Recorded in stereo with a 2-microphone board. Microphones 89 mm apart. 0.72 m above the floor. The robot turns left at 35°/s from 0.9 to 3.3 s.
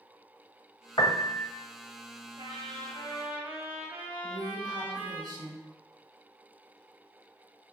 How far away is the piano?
About 0.7 m.